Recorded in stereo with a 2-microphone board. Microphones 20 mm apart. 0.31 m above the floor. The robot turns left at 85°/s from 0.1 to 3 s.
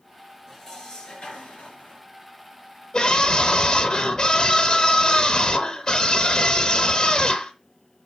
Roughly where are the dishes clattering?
Behind.